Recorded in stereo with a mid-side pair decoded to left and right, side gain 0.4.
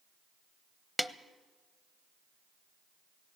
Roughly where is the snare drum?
Ahead.